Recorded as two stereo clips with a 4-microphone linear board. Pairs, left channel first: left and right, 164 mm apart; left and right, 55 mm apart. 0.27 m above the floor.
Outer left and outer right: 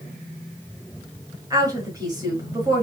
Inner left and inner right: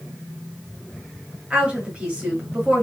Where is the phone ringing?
No phone ringing in this recording.